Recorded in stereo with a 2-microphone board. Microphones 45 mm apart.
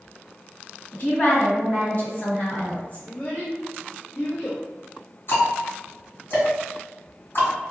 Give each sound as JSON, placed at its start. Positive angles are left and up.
{"t": 0.9, "sound": "a woman speaking", "side_deg": 35, "distance_m": 1.8}
{"t": 3.0, "sound": "a child speaking", "side_deg": 45, "distance_m": 0.9}
{"t": 5.3, "sound": "ticking", "side_deg": 55, "distance_m": 1.9}